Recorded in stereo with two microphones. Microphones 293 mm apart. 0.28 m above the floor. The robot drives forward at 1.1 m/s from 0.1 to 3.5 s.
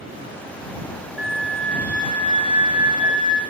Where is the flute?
55° right (ahead or behind), 0.6 m; by 3.4 s 10° right (ahead or behind), 2.5 m.